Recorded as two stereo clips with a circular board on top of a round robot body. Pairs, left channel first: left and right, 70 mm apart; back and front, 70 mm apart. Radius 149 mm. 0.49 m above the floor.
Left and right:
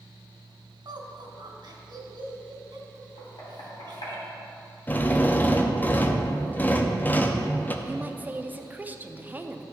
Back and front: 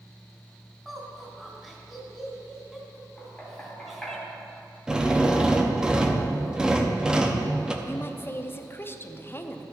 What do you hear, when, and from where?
0.8 s laughter: 90° right, 2.5 m
3.2 s knocking: 100° left, 3 m
4.9 s a drill: 65° left, 1.0 m
7.8 s a woman speaking: 145° right, 0.8 m